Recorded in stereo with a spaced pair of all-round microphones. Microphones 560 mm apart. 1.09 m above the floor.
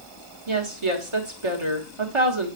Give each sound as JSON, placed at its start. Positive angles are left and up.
{"t": 0.5, "sound": "a woman speaking", "side_deg": -60, "distance_m": 1.4}